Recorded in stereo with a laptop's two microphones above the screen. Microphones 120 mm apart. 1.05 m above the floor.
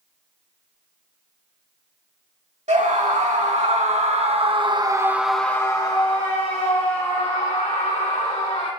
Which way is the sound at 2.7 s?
70° right (ahead or behind).